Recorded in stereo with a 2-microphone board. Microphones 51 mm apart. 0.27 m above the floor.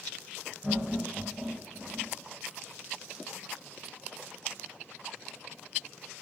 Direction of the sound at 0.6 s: 20° right (ahead or behind).